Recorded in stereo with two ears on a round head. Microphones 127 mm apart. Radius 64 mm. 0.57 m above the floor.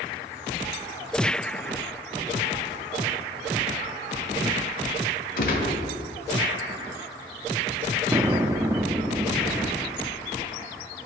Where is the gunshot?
70° left (ahead or behind), 1.3 m.